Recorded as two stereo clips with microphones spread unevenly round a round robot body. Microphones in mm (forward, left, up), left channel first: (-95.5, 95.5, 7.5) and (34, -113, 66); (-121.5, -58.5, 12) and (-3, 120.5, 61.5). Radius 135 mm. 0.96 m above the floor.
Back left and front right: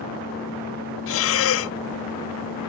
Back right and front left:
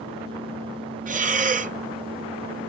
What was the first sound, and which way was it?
Breathing, 115° left.